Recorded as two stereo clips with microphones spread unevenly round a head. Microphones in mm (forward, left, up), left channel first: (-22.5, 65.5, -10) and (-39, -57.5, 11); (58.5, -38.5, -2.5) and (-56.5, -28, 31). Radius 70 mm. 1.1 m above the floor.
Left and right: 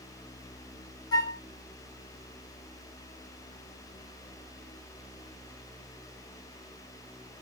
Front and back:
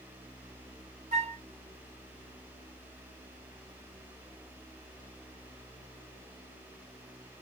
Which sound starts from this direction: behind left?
A flute, at 1.1 s.